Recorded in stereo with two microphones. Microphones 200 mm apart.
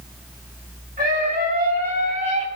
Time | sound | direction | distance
1.0 | a scream | 45° right (ahead or behind) | 2.5 m